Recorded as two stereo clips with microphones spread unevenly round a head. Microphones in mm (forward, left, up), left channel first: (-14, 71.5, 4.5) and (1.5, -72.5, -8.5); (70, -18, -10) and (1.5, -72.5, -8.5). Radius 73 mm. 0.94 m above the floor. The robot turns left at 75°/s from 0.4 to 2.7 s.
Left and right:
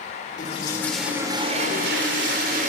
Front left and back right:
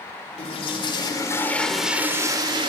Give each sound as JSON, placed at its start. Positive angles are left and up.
{"t": 0.4, "sound": "a toilet flushing", "azimuth_deg": 50, "distance_m": 3.0}